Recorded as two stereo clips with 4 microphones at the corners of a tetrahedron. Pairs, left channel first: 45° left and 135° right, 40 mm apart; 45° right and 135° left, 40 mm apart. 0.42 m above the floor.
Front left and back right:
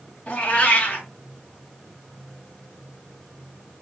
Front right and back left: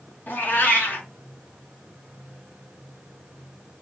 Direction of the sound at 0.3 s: 10° right.